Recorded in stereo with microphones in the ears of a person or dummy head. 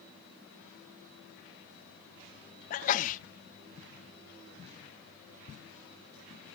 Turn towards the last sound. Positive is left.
turn(degrees=45)  # may be behind; listen again after turning